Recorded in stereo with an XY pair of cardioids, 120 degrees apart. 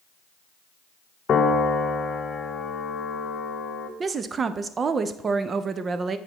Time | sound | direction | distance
1.3 | a piano | 40° left | 0.9 m
4.0 | a woman speaking | 35° right | 0.6 m